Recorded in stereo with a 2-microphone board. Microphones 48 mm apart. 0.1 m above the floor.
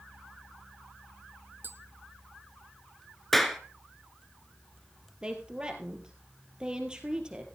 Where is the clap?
5° left (ahead or behind), 1.1 m.